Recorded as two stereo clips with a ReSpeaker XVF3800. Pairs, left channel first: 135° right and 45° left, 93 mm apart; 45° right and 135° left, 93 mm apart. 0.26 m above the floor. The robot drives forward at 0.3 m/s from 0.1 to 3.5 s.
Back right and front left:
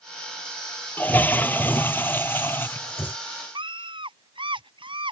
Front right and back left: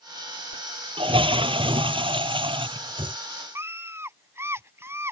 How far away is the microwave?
I don't hear a microwave.